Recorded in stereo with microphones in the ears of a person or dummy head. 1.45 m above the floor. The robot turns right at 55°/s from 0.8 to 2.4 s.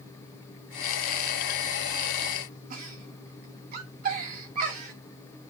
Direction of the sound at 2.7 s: 55° right (ahead or behind).